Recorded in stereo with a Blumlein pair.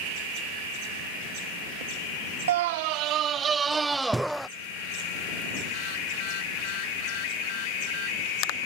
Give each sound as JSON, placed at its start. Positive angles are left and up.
{"t": 2.5, "sound": "a scream", "azimuth_deg": -60}